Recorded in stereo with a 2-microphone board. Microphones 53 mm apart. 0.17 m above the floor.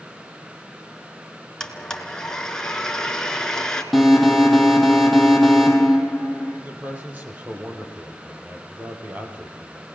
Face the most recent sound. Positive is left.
turn(degrees=-30)  # may be behind; listen again after turning